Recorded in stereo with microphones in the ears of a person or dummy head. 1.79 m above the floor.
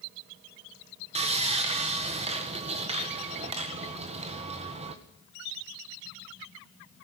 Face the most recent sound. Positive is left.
turn(degrees=-30)  # may be behind; listen again after turning